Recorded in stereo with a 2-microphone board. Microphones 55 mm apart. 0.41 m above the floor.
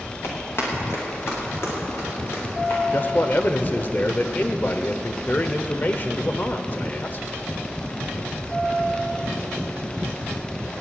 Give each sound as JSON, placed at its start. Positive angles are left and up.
{"t": 0.2, "sound": "running footsteps", "side_deg": 50, "distance_m": 6.0}
{"t": 2.9, "sound": "a man speaking", "side_deg": 40, "distance_m": 0.9}